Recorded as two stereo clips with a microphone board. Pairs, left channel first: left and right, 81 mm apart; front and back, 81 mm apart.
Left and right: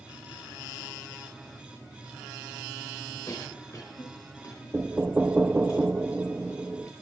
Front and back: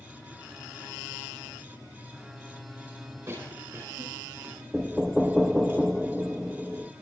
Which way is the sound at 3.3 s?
125° left.